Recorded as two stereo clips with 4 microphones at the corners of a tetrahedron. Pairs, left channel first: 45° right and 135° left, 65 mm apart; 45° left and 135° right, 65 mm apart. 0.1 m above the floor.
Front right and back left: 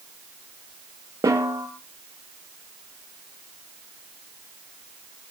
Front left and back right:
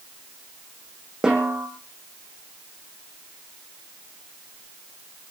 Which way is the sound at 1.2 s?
145° left.